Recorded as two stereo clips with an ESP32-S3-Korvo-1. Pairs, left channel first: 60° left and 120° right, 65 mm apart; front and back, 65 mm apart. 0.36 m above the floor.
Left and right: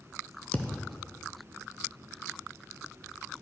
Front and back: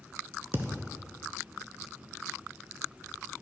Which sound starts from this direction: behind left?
A thud, at 0.5 s.